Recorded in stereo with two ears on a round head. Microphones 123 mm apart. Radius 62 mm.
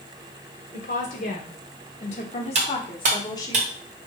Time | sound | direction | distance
0.7 | a woman speaking | 65° left (ahead or behind) | 1.8 m
2.5 | cutlery clinking | 50° right (ahead or behind) | 1.3 m